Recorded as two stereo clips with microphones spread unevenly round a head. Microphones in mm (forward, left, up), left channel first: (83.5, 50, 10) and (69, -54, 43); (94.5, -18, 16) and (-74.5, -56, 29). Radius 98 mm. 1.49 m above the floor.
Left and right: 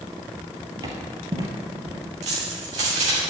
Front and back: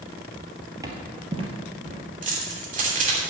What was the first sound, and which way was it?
Footsteps, 105° right.